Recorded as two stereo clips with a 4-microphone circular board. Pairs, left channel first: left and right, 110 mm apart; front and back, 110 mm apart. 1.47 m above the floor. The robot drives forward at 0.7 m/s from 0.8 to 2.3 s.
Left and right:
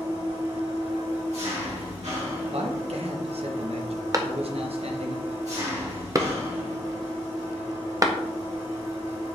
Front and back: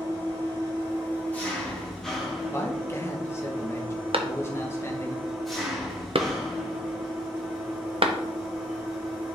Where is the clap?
145° right, 0.7 m.